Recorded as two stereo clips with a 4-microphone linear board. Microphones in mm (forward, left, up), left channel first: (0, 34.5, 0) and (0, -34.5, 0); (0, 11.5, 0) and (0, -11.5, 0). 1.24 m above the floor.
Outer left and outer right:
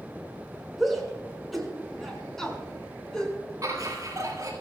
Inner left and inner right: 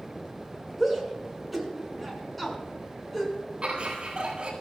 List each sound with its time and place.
0.8 s a shout: centre (ahead or behind), 6 m; by 3.4 s 10° left (ahead or behind), 6 m
3.6 s laughter: 50° right (ahead or behind), 9.5 m